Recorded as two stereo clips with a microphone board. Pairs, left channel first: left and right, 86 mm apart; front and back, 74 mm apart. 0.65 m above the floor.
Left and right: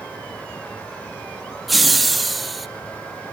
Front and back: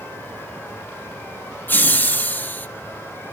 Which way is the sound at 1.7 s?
5° right.